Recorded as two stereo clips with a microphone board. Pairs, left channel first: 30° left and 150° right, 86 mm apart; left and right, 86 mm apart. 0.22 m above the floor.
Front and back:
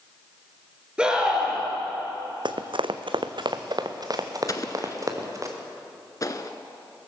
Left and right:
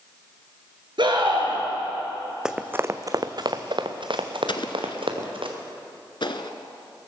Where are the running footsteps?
170° right, 0.7 m; by 5.5 s 100° right, 2.5 m.